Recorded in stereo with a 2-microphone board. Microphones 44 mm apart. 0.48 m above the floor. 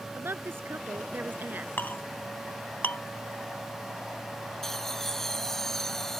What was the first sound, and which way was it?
A woman speaking, 65° right (ahead or behind).